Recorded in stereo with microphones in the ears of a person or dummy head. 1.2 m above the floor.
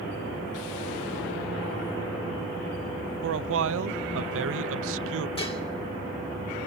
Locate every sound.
3.2 s a man speaking: 85° right, 0.7 m
5.4 s dishes clattering: 30° left (ahead or behind), 2.5 m